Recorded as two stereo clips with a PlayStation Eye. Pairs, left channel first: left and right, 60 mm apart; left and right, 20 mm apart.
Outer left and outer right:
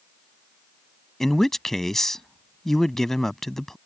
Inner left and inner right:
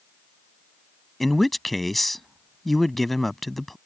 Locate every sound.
1.2 s a man speaking: 5° left (ahead or behind)